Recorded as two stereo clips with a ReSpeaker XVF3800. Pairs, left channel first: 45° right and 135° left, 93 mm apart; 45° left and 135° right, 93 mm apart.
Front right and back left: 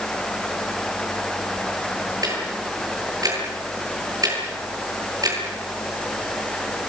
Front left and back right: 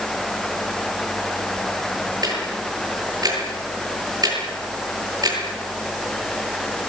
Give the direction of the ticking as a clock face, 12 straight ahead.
6 o'clock.